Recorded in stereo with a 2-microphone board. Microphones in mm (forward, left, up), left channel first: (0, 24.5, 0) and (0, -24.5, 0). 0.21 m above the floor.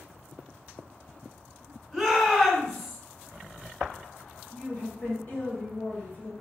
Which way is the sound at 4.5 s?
45° left (ahead or behind).